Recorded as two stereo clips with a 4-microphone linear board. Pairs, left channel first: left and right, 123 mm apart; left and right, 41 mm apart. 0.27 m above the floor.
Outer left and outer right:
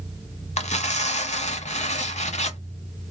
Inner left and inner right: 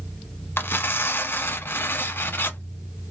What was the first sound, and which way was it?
Tearing paper, 65° left (ahead or behind).